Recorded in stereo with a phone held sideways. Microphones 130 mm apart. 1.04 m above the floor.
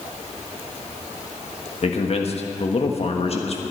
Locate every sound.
1.8 s a man speaking: 50° left (ahead or behind), 1.3 m